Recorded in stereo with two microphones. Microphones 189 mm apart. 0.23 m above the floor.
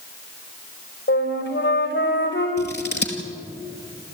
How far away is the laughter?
No laughter in this recording.